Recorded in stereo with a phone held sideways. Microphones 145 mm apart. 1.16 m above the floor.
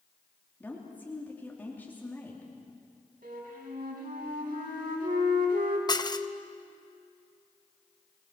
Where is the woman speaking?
15° left (ahead or behind), 3 m.